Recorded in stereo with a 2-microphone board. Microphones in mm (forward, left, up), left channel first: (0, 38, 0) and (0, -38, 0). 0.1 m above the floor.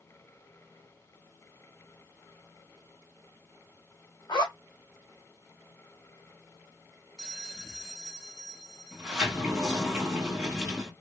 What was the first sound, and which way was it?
A zipper, 75° left (ahead or behind).